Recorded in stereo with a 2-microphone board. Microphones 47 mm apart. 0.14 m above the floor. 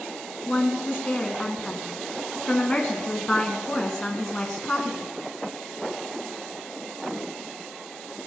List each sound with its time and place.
0.5 s a woman speaking: 25° left (ahead or behind), 1.6 m